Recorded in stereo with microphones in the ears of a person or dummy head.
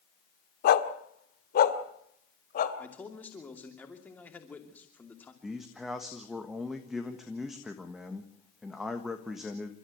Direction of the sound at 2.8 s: 10° left (ahead or behind).